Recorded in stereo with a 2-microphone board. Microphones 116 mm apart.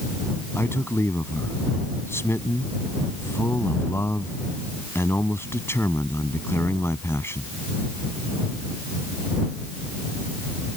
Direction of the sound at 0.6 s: 20° left (ahead or behind).